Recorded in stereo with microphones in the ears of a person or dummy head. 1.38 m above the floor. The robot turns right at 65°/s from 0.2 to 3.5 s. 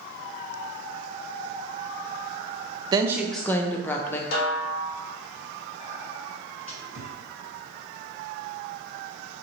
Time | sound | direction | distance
2.9 | a woman speaking | 25° right | 0.6 m
4.3 | a snare drum | 60° left (ahead or behind) | 1.0 m
5.8 | whispering | 50° left (ahead or behind) | 1.3 m